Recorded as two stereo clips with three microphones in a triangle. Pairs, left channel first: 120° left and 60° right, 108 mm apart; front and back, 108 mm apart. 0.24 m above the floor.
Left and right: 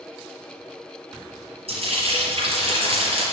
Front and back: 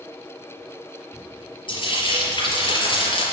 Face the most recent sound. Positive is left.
turn(degrees=-40)